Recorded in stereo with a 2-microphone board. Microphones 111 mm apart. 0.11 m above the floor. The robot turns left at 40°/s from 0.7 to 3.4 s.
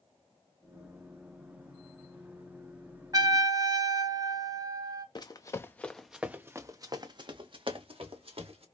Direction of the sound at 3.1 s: 40° right (ahead or behind).